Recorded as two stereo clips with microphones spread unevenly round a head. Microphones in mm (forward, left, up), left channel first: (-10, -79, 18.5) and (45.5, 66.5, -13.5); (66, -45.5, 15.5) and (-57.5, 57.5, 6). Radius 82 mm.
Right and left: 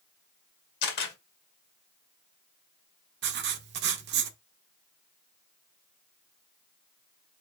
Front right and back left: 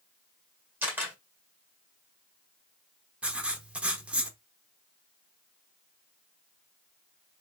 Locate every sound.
0.8 s a camera shutter: 140° right, 1.7 m
3.2 s writing: 55° left, 0.8 m